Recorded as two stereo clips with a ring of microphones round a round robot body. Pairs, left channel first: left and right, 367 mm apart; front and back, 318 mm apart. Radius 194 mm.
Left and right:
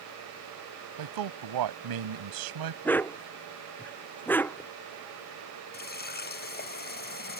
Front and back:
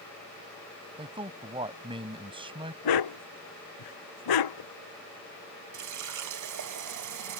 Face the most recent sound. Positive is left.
turn(degrees=155)